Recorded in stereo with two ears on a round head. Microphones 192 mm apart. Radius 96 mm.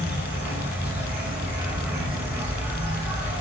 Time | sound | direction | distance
0.0 | an insect | 10° right (ahead or behind) | 2.0 m